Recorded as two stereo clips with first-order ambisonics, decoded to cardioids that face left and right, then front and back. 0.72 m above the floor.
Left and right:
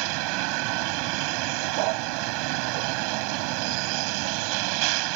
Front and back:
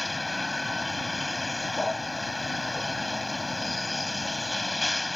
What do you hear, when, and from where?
0.0 s a vehicle: 80° right